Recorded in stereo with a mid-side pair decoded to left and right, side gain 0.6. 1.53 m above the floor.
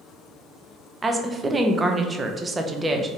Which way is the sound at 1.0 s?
20° right.